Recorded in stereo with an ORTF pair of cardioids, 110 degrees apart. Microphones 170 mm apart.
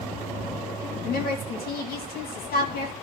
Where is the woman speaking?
65° left, 2.5 m.